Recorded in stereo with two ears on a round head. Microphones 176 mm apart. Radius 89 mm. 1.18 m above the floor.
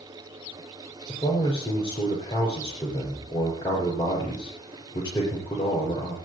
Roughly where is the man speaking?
Left.